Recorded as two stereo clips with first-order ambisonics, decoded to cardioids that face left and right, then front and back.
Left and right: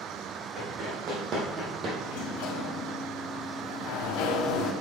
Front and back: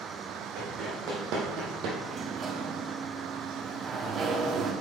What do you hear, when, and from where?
0.6 s running footsteps: 145° right, 3.5 m; by 1.9 s 150° right, 1.8 m
2.0 s a sliding door: 120° left, 0.9 m